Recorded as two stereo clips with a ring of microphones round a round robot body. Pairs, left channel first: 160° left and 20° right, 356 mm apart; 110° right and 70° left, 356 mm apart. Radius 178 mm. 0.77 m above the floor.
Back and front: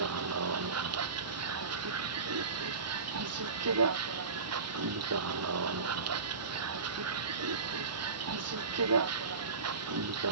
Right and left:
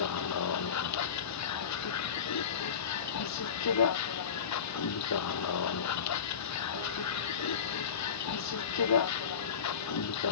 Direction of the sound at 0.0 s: 70° right.